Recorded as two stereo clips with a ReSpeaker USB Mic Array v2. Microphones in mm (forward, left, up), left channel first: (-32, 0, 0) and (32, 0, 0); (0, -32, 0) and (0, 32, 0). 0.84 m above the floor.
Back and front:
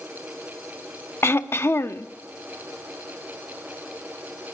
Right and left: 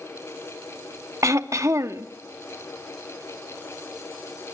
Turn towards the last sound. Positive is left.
turn(degrees=130)